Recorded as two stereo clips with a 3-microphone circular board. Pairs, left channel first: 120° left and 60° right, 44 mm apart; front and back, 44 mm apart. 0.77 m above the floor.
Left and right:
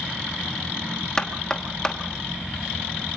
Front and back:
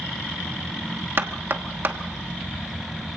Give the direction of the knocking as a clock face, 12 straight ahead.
6 o'clock.